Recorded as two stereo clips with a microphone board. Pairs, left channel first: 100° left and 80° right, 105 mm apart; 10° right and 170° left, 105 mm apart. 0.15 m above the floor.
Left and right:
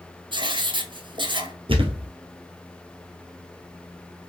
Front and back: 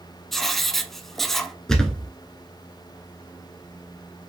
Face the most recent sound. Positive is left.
turn(degrees=-95)